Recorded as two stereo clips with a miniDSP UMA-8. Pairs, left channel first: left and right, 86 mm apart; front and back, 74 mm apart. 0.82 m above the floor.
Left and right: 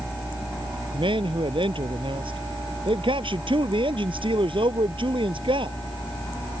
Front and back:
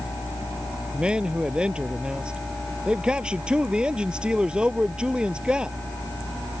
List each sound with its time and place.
0.9 s a man speaking: 100° right